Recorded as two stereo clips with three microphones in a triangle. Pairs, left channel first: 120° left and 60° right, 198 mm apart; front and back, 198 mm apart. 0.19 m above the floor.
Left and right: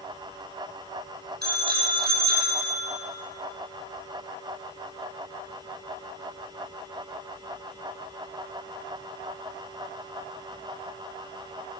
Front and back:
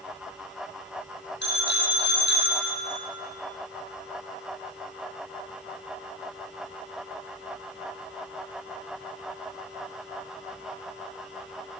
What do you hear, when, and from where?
1.4 s a bicycle bell: 25° right, 4.5 m